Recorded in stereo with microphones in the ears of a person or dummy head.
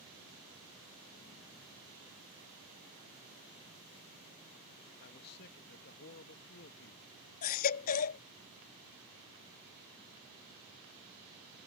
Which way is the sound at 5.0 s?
55° left (ahead or behind).